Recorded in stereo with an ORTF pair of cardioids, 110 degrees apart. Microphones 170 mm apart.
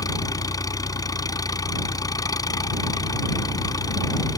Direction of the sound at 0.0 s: 20° left.